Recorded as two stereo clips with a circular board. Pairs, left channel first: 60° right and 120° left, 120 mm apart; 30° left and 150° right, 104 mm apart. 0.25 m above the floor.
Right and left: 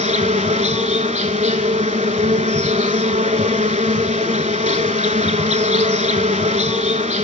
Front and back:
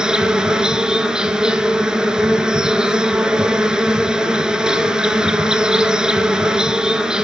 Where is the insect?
130° left, 0.8 m.